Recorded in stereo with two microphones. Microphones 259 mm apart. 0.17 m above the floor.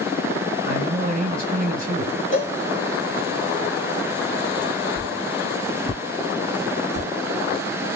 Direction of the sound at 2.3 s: 30° left (ahead or behind).